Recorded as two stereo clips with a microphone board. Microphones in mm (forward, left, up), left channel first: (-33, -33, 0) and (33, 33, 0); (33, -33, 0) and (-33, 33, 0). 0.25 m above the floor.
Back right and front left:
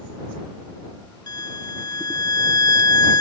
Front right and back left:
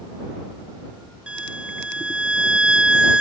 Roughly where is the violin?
Behind right.